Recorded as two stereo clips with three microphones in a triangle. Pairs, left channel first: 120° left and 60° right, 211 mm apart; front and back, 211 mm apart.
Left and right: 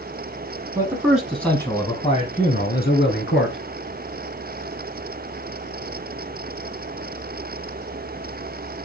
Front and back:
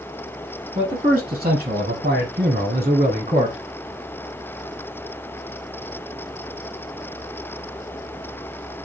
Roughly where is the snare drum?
I don't hear a snare drum.